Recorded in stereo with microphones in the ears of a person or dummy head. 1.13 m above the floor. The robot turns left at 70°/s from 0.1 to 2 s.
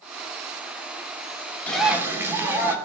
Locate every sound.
1.7 s a bird: 10° left (ahead or behind), 3.5 m; by 2.8 s 15° right (ahead or behind), 3.5 m